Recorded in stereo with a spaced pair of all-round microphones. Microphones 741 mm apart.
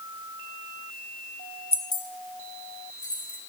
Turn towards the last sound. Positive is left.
turn(degrees=55)  # may be behind; listen again after turning